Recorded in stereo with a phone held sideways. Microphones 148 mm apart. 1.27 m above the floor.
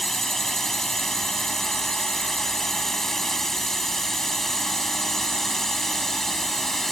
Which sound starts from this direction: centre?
A drone, at 0.0 s.